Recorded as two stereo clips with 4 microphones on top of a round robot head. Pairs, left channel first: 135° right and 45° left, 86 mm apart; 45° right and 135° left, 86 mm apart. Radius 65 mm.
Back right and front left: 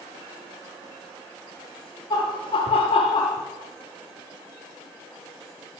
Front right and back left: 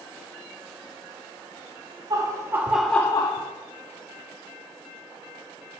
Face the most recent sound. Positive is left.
turn(degrees=-70)